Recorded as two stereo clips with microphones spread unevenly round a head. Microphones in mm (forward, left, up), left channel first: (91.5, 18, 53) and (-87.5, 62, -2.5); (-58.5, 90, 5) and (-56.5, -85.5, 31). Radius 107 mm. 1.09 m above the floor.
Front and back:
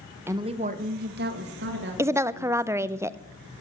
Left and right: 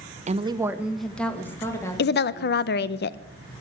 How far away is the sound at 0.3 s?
About 0.8 m.